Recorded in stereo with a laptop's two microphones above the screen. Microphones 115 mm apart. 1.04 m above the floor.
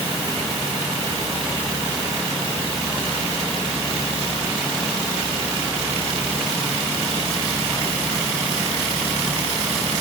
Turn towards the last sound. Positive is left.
No sound to turn to.